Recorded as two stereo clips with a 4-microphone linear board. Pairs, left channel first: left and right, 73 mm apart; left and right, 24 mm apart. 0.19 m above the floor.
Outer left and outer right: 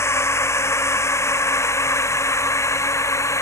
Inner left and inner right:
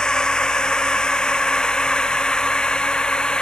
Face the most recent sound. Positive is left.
turn(degrees=45)  # may be behind; listen again after turning